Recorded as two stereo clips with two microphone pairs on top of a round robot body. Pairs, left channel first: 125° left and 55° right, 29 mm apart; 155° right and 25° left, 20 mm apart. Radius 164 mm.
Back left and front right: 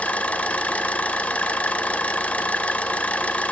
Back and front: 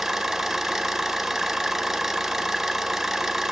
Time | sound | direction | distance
0.0 | an engine running | 100° left | 0.8 m